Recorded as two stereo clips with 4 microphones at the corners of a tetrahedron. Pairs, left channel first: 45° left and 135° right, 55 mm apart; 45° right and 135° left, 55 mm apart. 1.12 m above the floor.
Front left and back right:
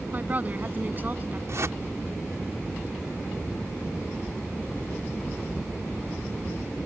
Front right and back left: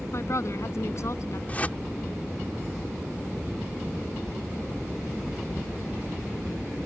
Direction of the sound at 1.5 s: 105° right.